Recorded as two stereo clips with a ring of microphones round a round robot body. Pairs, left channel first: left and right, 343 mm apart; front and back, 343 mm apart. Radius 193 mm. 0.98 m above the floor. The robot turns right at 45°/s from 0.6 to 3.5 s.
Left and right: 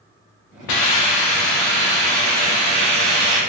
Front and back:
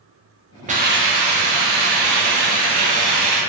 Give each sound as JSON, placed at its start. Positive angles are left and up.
{"t": 0.7, "sound": "a hiss", "azimuth_deg": 110, "distance_m": 0.6}